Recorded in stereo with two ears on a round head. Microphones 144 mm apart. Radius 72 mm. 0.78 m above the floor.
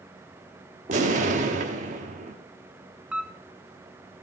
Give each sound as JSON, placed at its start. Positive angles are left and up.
{"t": 0.9, "sound": "an explosion", "side_deg": -45, "distance_m": 1.0}
{"t": 3.1, "sound": "a camera shutter", "side_deg": -5, "distance_m": 0.8}